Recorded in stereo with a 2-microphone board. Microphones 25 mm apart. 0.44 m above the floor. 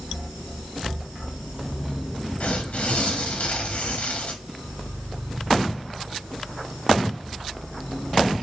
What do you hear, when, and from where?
2.4 s tearing paper: 65° left (ahead or behind), 0.6 m